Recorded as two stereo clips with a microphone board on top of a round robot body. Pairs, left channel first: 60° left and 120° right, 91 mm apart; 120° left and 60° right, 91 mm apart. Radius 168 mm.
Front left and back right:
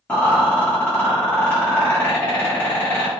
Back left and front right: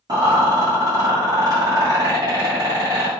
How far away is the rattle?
About 0.6 m.